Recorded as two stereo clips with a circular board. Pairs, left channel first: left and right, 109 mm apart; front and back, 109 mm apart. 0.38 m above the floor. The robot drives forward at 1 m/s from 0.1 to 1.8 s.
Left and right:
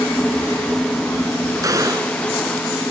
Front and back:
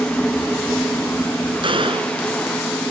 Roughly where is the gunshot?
Behind right.